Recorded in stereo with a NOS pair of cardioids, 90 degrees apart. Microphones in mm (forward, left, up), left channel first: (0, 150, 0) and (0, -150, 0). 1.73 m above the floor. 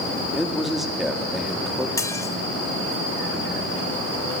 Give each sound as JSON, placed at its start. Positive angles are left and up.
{"t": 0.3, "sound": "a man speaking", "azimuth_deg": 0, "distance_m": 4.0}
{"t": 2.0, "sound": "dishes clattering", "azimuth_deg": 10, "distance_m": 3.0}